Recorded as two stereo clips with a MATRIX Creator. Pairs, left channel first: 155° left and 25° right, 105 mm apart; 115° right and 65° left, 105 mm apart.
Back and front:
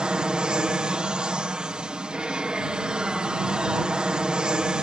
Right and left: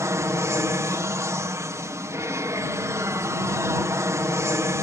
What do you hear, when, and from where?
0.0 s an aircraft: 50° left